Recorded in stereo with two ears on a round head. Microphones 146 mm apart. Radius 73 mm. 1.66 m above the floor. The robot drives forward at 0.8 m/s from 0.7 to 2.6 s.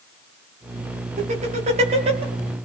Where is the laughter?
45° right (ahead or behind), 4 m; by 2.2 s 35° right (ahead or behind), 4.5 m.